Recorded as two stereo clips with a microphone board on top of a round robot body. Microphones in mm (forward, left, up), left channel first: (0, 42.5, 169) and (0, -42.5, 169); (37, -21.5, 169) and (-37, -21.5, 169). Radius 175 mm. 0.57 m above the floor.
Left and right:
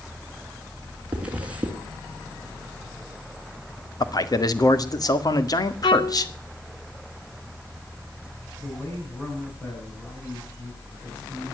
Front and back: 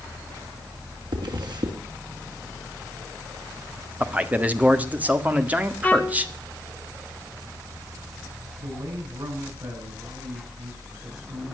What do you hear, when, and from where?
1.1 s a zipper: 165° right, 3 m
4.0 s a man speaking: 115° left, 2 m
5.8 s a violin: 70° left, 0.9 m
8.6 s a man speaking: 160° left, 9 m